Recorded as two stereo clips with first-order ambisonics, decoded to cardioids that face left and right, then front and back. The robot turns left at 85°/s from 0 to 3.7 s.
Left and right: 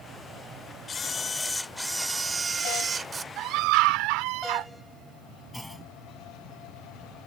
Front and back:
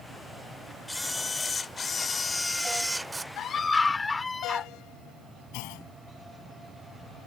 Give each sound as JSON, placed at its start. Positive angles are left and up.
{"t": 0.9, "sound": "a camera shutter", "azimuth_deg": 80}
{"t": 3.4, "sound": "a scream", "azimuth_deg": -45}
{"t": 5.5, "sound": "a clunk", "azimuth_deg": 0}